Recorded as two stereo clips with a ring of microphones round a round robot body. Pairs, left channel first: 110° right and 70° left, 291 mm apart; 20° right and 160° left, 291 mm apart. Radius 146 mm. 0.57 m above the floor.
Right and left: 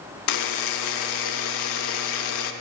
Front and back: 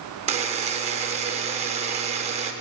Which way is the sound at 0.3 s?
135° right.